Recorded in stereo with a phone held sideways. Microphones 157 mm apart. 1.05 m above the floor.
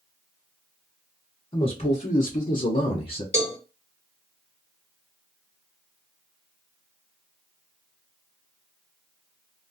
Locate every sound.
1.5 s a man speaking: 35° left (ahead or behind), 1.0 m; by 3.2 s 45° left (ahead or behind), 0.9 m
3.3 s a cowbell: 45° left (ahead or behind), 1.0 m